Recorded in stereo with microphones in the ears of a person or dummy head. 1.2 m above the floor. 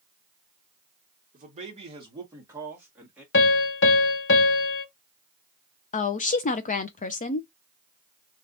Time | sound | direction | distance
1.3 | a man speaking | 40° right (ahead or behind) | 1.3 m
3.3 | a piano | 60° left (ahead or behind) | 0.7 m
5.9 | a woman speaking | 35° left (ahead or behind) | 0.5 m